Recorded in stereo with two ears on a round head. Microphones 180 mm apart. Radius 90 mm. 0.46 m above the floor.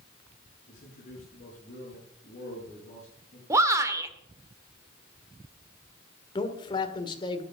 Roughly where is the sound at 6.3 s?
Left.